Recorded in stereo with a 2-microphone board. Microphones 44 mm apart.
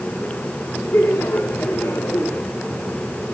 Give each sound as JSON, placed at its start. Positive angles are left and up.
{"t": 0.9, "sound": "laughter", "side_deg": 80, "distance_m": 3.5}